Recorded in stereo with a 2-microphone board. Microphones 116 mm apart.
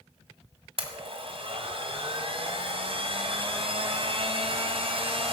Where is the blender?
55° right (ahead or behind), 1.7 m.